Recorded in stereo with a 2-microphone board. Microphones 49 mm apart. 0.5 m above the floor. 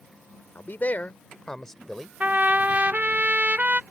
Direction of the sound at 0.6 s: 45° left (ahead or behind).